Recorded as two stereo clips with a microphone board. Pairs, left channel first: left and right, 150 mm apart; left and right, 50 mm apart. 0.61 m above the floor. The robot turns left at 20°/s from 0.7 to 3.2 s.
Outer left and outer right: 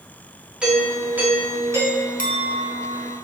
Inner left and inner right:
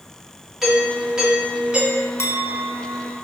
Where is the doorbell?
5° right (ahead or behind), 2 m; by 2.1 s 20° right (ahead or behind), 2 m.